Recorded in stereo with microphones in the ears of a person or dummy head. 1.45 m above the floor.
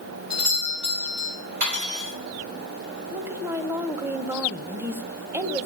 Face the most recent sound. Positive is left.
turn(degrees=-15)  # may be behind; listen again after turning